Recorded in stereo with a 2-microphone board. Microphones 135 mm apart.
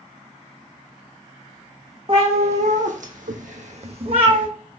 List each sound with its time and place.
2.1 s a cat meowing: 45° right (ahead or behind), 0.9 m; by 4.5 s 35° right (ahead or behind), 0.9 m